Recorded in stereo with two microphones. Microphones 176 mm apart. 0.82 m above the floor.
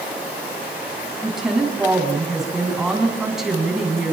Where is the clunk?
I don't hear a clunk.